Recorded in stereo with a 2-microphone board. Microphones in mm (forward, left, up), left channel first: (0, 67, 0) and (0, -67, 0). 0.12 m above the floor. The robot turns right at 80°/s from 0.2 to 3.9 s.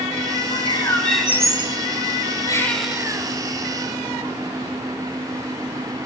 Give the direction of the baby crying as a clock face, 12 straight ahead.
7 o'clock.